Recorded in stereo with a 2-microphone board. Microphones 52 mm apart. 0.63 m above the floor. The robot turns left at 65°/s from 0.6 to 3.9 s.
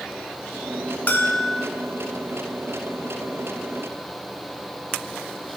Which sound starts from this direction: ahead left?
A bell, at 1.1 s.